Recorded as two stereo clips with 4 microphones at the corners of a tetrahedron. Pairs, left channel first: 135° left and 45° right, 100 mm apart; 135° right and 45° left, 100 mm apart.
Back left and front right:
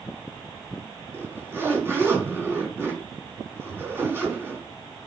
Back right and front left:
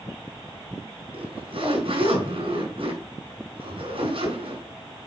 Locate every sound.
1.1 s a zipper: 20° left, 3.5 m